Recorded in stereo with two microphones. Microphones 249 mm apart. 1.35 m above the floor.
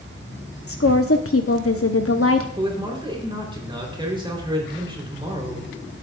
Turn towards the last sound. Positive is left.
turn(degrees=-20)  # may be behind; listen again after turning